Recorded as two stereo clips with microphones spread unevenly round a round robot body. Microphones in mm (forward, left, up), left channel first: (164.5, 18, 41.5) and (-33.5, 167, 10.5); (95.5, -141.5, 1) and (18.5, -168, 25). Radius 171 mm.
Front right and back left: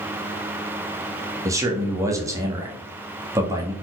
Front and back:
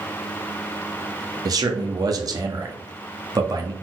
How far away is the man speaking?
About 1.1 m.